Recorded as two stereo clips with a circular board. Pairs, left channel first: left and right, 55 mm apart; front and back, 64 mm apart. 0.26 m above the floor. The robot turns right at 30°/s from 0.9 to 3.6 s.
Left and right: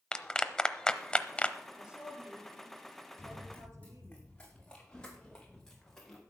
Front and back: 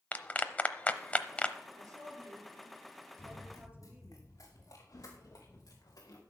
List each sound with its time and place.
0.1 s a clap: 30° left, 0.7 m; by 1.6 s 50° left, 0.7 m
1.7 s a woman speaking: 170° right, 4.5 m; by 4.2 s 115° right, 4.5 m
3.2 s running footsteps: 10° left, 5.5 m; by 6.2 s 5° left, 3.5 m